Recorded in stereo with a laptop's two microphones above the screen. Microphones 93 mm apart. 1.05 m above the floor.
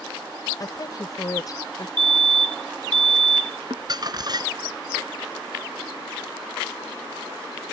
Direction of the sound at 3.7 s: 50° right (ahead or behind).